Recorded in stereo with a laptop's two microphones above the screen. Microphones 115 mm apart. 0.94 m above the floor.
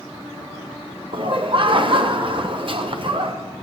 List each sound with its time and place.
1.1 s laughter: 45° right (ahead or behind), 0.6 m